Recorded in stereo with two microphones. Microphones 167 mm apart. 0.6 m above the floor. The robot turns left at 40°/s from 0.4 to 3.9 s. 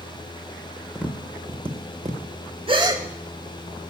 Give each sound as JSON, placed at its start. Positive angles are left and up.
{"t": 0.9, "sound": "tapping", "side_deg": -5, "distance_m": 0.7}
{"t": 2.7, "sound": "a gasp", "side_deg": -35, "distance_m": 0.7}